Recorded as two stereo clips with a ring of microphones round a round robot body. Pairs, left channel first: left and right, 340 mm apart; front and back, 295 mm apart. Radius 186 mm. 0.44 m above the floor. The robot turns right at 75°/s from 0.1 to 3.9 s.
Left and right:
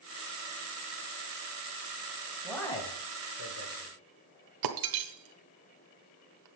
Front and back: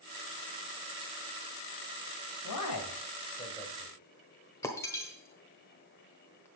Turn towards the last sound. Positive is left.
turn(degrees=-80)